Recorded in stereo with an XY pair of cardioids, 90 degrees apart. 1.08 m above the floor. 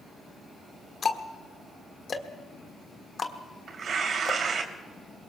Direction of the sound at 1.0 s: 45° left.